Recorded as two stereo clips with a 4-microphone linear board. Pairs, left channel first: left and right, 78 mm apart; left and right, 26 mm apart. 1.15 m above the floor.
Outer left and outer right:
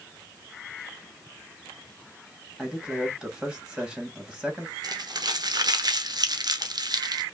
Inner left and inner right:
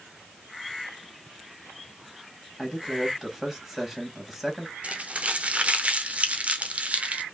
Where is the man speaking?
10° right (ahead or behind), 2.5 m.